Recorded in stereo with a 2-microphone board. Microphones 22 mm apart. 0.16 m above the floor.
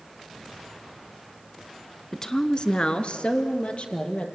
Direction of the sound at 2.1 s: 15° left (ahead or behind).